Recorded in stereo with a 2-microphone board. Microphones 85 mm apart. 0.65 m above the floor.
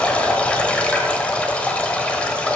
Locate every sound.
0.0 s running water: 15° left (ahead or behind), 0.9 m